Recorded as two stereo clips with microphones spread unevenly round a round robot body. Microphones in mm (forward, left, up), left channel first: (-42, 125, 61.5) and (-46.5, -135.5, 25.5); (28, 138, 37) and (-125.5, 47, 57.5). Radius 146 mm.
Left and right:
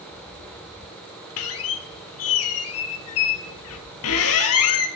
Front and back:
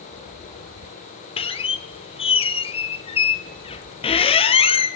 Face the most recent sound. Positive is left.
turn(degrees=90)